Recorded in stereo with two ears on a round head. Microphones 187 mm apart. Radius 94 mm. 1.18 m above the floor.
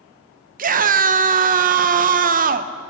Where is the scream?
40° right (ahead or behind), 0.7 m.